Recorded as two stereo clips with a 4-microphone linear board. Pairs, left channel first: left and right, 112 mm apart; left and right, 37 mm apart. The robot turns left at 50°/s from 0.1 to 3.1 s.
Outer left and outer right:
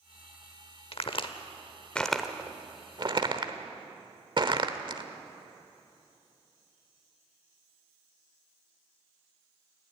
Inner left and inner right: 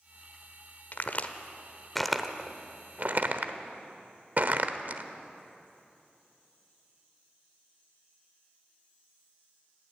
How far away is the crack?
About 1.1 m.